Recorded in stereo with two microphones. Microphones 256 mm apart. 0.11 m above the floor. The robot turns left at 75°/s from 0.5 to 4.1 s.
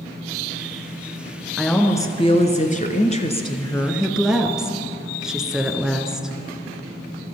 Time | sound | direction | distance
1.6 | a woman speaking | 5° right (ahead or behind) | 1.2 m